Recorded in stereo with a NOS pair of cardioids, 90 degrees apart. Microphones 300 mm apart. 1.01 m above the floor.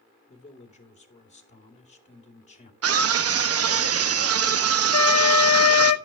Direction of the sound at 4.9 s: 60° left.